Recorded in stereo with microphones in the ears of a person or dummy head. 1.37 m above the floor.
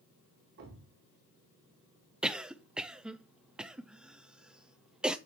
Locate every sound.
0.6 s a thud: 60° right (ahead or behind), 1.9 m
2.2 s a cough: 5° right (ahead or behind), 0.6 m